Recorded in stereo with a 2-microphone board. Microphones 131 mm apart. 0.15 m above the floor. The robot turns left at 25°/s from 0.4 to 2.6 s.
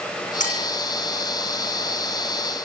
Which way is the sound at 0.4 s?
75° left (ahead or behind).